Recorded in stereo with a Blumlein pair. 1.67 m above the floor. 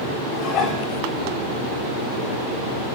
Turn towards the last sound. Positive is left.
turn(degrees=35)